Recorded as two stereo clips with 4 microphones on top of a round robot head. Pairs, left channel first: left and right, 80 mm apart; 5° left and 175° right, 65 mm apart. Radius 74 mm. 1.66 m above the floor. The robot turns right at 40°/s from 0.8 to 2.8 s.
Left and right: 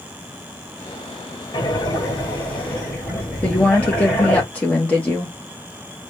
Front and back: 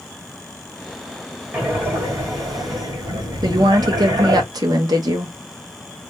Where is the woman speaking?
170° left, 0.8 m.